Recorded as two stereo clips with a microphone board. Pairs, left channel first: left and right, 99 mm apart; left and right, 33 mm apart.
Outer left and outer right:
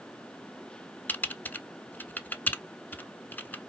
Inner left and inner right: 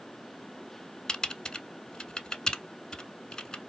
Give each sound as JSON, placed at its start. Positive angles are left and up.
{"t": 1.1, "sound": "typing on a keyboard", "side_deg": 20, "distance_m": 0.6}